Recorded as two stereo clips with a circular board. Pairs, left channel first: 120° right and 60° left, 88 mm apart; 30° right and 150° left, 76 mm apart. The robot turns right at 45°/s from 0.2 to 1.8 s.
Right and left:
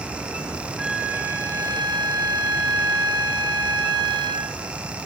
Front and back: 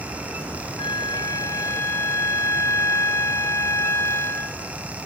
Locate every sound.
0.8 s a flute: 20° right, 0.5 m; by 4.6 s 25° left, 0.5 m